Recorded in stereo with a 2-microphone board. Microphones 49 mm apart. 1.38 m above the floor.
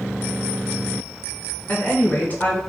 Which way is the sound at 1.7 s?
35° left (ahead or behind).